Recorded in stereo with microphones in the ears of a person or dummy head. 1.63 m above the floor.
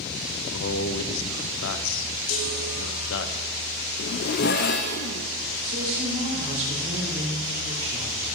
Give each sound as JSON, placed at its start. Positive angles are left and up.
{"t": 0.5, "sound": "a man speaking", "side_deg": 70, "distance_m": 0.8}
{"t": 2.3, "sound": "a chime", "side_deg": 80, "distance_m": 3.0}
{"t": 4.0, "sound": "a zipper", "side_deg": 45, "distance_m": 0.6}
{"t": 5.6, "sound": "a woman speaking", "side_deg": -40, "distance_m": 5.5}